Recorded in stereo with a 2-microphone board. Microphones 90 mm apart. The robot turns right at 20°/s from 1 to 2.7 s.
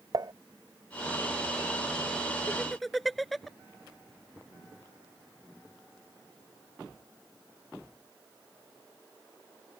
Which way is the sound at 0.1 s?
50° right (ahead or behind).